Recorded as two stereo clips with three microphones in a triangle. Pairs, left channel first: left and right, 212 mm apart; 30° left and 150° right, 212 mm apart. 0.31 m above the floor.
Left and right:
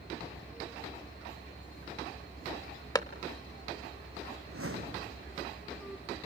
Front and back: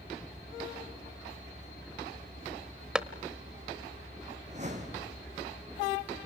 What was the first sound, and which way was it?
A clap, 130° left.